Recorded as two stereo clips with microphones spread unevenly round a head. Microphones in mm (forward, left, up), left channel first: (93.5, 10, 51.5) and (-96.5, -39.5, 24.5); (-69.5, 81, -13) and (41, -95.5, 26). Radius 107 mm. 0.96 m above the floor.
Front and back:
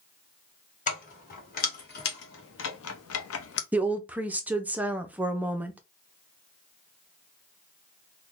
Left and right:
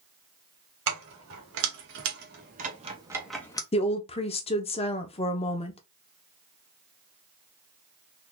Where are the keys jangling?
35° right, 2 m; by 3.6 s 50° left, 0.7 m.